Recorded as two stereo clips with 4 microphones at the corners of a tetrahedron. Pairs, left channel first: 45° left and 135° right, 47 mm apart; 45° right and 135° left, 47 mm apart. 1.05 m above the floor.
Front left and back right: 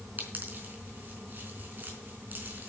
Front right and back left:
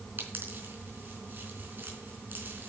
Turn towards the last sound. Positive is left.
turn(degrees=175)